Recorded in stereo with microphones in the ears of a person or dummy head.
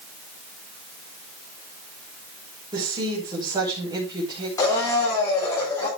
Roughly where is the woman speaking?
Right.